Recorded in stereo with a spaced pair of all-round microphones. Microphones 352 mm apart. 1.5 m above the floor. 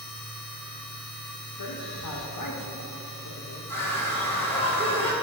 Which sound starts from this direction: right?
A machine running, at 0.0 s.